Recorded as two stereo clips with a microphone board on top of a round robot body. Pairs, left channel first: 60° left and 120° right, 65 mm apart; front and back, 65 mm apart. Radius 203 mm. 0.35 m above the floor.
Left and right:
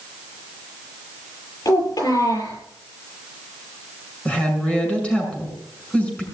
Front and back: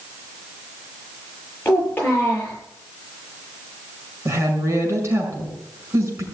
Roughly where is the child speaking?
Ahead left.